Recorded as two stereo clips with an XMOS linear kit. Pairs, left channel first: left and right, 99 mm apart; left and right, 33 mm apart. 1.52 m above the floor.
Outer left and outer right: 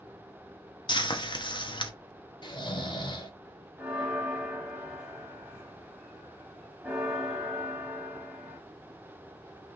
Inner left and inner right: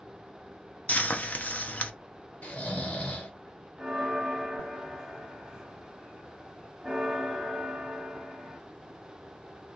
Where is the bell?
5° right (ahead or behind), 1.3 m.